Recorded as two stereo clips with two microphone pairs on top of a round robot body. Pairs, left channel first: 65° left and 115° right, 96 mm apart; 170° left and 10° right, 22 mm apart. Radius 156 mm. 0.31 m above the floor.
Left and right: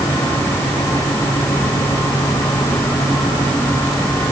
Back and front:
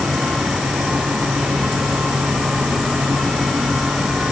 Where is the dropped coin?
I don't hear a dropped coin.